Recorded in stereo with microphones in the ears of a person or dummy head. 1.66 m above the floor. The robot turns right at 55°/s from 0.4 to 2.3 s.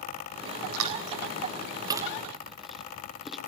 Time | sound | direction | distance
0.7 | chewing | 80° right | 1.3 m